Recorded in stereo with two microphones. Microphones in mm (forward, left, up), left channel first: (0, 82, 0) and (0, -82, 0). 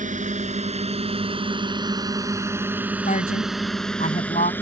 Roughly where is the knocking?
No knocking in this recording.